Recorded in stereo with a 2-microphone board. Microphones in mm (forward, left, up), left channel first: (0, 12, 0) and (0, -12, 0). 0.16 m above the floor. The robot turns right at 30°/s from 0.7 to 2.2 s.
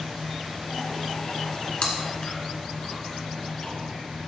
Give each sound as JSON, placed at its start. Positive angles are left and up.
{"t": 1.8, "sound": "chewing", "side_deg": 40, "distance_m": 2.0}